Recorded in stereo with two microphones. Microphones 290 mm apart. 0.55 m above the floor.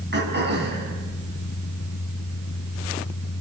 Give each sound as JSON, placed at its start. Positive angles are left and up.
{"t": 0.1, "sound": "throat clearing", "side_deg": -35, "distance_m": 5.5}